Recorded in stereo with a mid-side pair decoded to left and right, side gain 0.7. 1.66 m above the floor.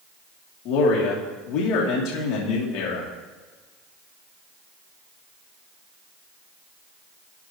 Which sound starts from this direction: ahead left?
A man speaking, at 0.7 s.